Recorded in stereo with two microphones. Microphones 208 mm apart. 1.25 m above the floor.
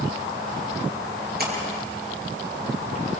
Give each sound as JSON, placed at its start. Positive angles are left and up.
{"t": 1.4, "sound": "a splash", "side_deg": -45, "distance_m": 7.0}